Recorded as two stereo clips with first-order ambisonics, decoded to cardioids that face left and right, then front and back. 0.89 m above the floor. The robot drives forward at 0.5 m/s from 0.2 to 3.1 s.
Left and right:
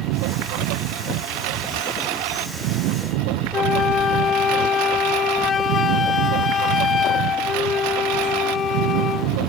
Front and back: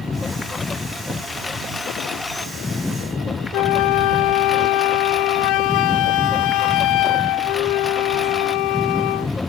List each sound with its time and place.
0.0 s a lawn mower: 75° right; by 9.5 s 80° right
3.5 s a flute: 25° left